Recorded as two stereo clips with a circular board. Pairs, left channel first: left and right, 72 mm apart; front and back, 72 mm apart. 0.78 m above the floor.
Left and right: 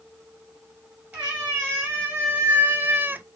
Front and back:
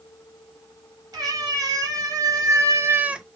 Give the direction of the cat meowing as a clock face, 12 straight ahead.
5 o'clock.